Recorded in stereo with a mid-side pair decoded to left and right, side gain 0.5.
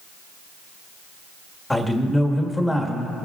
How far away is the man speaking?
About 1.7 m.